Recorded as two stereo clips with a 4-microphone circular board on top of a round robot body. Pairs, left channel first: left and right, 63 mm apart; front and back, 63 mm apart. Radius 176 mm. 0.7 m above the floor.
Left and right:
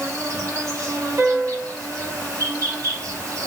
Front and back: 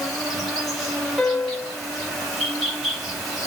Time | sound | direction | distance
0.0 | an insect | 95° right | 1.7 m
1.2 | a piano | 70° right | 0.8 m